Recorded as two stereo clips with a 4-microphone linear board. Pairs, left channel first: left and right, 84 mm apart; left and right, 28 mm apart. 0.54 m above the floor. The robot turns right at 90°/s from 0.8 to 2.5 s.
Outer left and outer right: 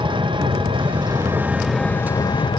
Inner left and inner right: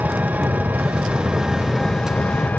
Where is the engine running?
80° right, 1.1 m; by 2.6 s 70° left, 1.1 m.